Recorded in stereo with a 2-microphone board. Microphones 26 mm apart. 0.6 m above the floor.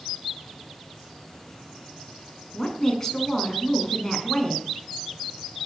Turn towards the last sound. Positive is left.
turn(degrees=20)  # may be behind; listen again after turning